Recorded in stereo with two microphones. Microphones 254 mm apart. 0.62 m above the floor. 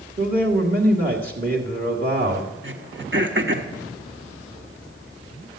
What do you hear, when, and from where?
0.2 s a man speaking: 35° right (ahead or behind), 1.9 m
2.6 s throat clearing: 50° right (ahead or behind), 1.4 m